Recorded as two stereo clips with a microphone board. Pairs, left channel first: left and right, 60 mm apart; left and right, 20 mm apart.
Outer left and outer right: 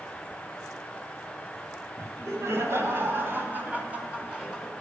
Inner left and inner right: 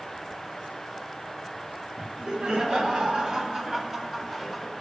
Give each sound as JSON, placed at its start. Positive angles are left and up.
{"t": 2.0, "sound": "laughter", "side_deg": -50, "distance_m": 2.5}